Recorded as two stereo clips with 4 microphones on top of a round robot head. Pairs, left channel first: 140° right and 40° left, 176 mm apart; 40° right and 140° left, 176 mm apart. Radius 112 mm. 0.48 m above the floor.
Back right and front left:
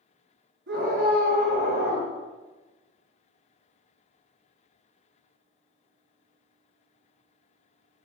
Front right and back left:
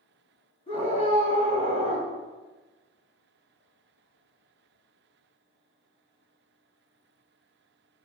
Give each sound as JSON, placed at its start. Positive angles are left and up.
{"t": 0.7, "sound": "a scream", "azimuth_deg": 15, "distance_m": 6.5}